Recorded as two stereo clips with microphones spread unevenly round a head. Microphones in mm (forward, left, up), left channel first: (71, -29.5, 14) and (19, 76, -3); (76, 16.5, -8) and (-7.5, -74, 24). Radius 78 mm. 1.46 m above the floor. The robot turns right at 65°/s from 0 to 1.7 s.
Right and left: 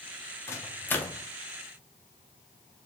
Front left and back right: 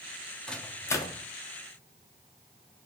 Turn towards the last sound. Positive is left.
turn(degrees=25)